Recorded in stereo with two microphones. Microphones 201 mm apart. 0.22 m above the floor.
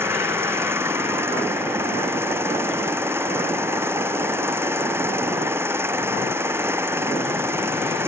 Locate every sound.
0.0 s an engine running: 10° right (ahead or behind)